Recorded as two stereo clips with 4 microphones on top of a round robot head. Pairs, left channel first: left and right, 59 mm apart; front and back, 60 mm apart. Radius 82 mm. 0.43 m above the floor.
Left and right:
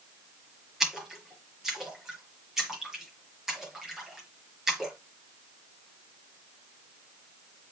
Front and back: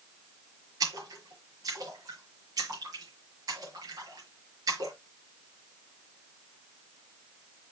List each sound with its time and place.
0.8 s a splash: 175° right, 5.5 m